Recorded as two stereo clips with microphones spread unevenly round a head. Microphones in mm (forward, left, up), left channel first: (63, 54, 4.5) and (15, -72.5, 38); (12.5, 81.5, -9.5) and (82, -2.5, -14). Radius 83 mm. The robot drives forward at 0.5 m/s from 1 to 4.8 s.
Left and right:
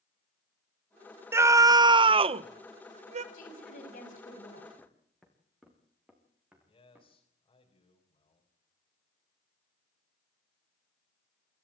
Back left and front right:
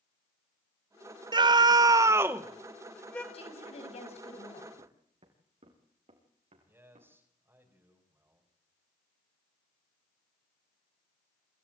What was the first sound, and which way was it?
A scream, 30° right.